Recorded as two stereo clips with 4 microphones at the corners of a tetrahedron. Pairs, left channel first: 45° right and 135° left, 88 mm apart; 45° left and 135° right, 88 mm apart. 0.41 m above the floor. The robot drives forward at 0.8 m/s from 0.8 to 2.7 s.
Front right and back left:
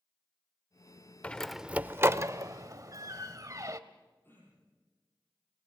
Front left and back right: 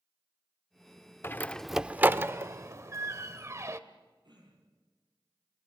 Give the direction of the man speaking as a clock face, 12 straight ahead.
I don't hear a man speaking.